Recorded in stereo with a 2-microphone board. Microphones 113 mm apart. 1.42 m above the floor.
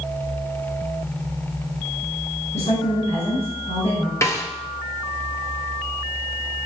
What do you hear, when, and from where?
2.5 s a woman speaking: 75° left (ahead or behind), 5.5 m
4.2 s a snare drum: 25° left (ahead or behind), 1.5 m